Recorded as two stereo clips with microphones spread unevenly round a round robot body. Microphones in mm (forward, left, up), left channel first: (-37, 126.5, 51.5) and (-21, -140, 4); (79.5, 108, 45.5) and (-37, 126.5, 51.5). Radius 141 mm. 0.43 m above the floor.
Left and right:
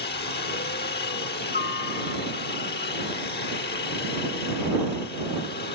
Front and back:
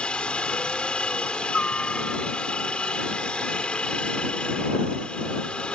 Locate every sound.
0.0 s a helicopter: 65° left